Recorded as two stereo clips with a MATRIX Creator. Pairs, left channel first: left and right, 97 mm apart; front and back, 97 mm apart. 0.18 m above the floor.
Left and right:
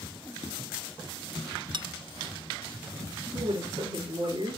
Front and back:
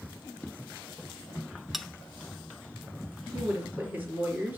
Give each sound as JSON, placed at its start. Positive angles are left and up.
{"t": 1.7, "sound": "a bell", "azimuth_deg": -90, "distance_m": 0.5}
{"t": 3.3, "sound": "a woman speaking", "azimuth_deg": -110, "distance_m": 3.0}